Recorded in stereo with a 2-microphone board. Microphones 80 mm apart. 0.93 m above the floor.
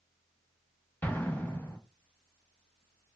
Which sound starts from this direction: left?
An explosion, at 1.0 s.